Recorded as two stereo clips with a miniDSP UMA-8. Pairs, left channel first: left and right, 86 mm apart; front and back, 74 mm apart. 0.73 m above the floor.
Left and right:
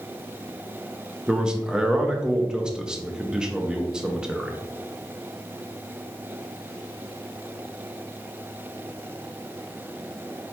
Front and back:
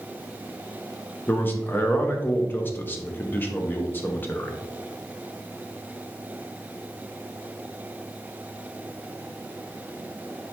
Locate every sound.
1.3 s a man speaking: 20° right, 0.6 m